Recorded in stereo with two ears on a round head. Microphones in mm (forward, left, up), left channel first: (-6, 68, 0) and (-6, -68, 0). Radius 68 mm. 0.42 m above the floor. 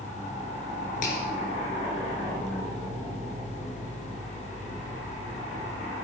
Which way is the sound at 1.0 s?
55° left (ahead or behind).